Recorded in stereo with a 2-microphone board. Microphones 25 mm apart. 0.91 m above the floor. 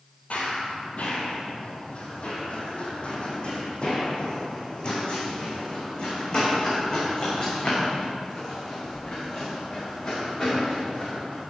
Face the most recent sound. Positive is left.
turn(degrees=35)  # may be behind; listen again after turning